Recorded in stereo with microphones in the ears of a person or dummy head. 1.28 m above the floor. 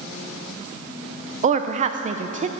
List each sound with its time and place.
1.4 s a woman speaking: 40° right (ahead or behind), 0.5 m